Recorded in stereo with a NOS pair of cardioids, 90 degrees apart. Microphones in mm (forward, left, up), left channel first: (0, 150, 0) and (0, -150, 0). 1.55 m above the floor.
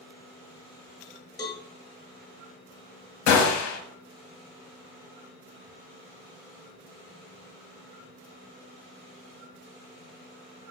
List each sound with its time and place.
1.4 s a cowbell: 15° left, 0.8 m
3.3 s a gunshot: 60° left, 0.6 m